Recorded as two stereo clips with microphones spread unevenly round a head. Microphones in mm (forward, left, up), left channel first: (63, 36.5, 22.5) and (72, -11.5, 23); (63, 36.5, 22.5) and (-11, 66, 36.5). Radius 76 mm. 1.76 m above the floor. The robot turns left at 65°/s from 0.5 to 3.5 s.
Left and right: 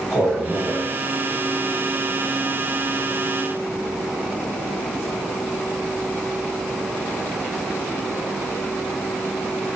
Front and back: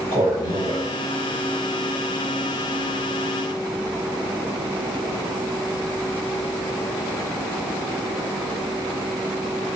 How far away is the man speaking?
About 1.7 m.